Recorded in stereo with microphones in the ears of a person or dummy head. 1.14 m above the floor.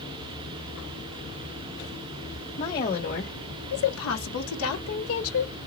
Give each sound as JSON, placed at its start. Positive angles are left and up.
{"t": 2.6, "sound": "a woman speaking", "side_deg": 35, "distance_m": 1.5}